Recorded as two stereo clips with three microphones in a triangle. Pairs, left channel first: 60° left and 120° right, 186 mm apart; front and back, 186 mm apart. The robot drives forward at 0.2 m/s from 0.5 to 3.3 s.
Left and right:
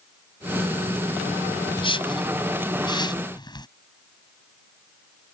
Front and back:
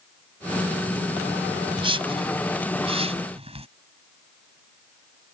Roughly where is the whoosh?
Behind left.